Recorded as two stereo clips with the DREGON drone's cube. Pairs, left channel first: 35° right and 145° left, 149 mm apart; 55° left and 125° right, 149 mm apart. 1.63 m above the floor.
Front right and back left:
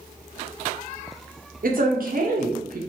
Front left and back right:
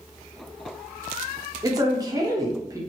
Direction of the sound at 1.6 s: 170° left.